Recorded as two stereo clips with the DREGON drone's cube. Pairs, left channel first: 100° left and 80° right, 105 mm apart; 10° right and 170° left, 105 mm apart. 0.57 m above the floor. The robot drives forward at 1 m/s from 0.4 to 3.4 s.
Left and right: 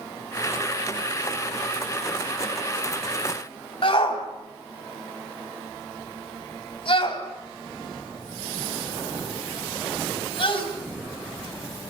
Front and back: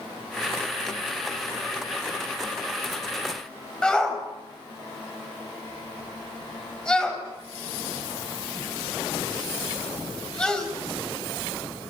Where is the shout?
70° left, 4 m.